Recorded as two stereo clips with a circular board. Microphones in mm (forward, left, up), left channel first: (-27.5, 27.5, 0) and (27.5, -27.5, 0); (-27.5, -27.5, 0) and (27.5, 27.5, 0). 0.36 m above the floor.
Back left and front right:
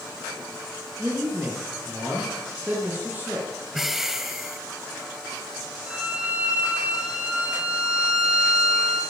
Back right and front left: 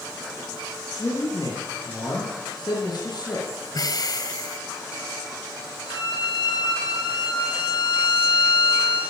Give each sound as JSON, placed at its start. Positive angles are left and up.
{"t": 1.0, "sound": "a man speaking", "azimuth_deg": -110, "distance_m": 7.0}
{"t": 3.7, "sound": "breathing", "azimuth_deg": -130, "distance_m": 2.0}
{"t": 5.9, "sound": "a violin", "azimuth_deg": -120, "distance_m": 5.0}